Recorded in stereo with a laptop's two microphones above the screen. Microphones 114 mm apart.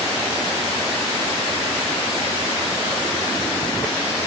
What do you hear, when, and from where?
Only background noise.